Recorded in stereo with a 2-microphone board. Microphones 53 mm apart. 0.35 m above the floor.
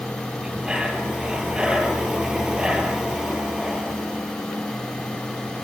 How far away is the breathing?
About 3 m.